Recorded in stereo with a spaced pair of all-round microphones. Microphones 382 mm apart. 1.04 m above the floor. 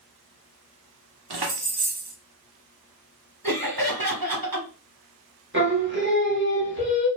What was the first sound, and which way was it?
Keys jangling, 80° right.